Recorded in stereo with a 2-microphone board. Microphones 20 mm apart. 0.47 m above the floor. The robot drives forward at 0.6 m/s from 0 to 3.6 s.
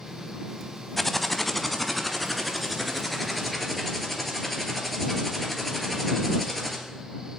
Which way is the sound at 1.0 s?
10° left (ahead or behind).